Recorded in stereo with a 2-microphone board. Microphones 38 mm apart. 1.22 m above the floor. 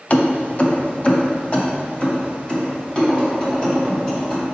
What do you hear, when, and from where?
0.1 s keys jangling: 40° left (ahead or behind), 0.6 m; by 4.4 s 25° left (ahead or behind), 2.5 m